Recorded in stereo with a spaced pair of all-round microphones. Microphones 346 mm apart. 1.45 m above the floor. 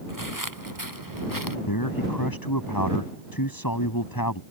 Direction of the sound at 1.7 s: 85° left.